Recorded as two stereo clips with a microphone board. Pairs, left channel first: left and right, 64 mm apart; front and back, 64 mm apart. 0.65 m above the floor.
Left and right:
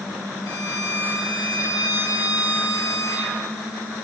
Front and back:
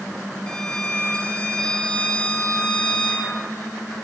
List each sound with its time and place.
0.5 s a violin: 75° left, 1.0 m